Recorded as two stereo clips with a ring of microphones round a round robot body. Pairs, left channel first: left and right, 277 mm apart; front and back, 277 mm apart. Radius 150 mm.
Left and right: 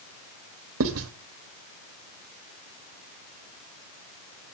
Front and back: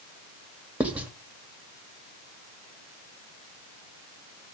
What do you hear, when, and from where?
0.8 s writing: 95° right, 1.4 m